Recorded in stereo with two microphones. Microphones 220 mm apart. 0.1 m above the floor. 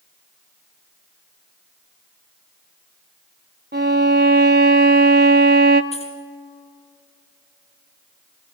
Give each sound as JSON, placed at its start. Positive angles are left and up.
{"t": 3.7, "sound": "a violin", "side_deg": -50, "distance_m": 0.9}
{"t": 5.9, "sound": "keys jangling", "side_deg": 30, "distance_m": 2.5}